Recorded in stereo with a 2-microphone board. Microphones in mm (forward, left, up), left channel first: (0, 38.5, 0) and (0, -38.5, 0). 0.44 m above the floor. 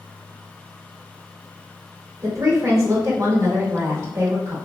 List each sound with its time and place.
2.2 s a woman speaking: 40° right (ahead or behind), 0.9 m